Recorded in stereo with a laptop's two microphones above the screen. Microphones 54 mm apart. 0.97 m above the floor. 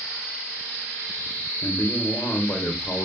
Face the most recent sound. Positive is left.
turn(degrees=45)  # may be behind; listen again after turning